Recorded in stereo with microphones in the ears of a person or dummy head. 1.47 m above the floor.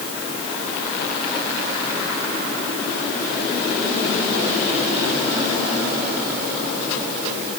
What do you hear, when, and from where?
Only background noise.